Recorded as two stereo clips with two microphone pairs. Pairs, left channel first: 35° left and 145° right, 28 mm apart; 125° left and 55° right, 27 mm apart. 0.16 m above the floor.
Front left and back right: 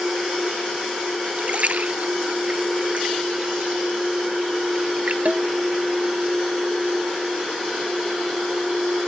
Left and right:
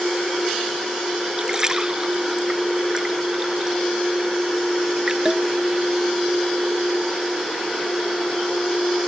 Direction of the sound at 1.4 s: 120° right.